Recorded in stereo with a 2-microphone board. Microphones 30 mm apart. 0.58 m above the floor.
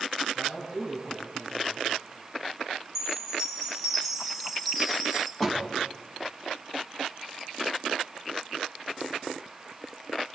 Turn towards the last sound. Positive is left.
turn(degrees=10)  # may be behind; listen again after turning